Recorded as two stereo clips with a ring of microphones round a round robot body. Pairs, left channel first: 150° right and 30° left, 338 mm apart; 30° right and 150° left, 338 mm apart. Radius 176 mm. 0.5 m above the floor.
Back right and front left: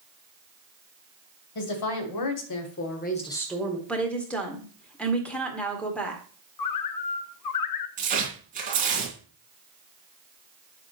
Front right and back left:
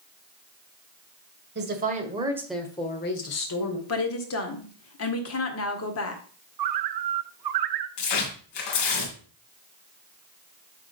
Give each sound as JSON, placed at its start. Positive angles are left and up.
{"t": 1.6, "sound": "a woman speaking", "azimuth_deg": -150, "distance_m": 2.5}
{"t": 3.9, "sound": "a woman speaking", "azimuth_deg": -65, "distance_m": 1.8}
{"t": 6.6, "sound": "a bird", "azimuth_deg": 175, "distance_m": 0.9}
{"t": 8.0, "sound": "tearing paper", "azimuth_deg": -40, "distance_m": 3.0}